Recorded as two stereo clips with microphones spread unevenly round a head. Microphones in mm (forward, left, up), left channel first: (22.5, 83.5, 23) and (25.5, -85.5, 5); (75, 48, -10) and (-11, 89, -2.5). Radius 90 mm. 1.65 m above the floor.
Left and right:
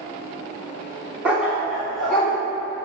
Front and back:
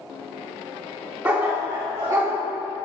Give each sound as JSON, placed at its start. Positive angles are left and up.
{"t": 1.2, "sound": "a dog barking", "azimuth_deg": -175, "distance_m": 1.3}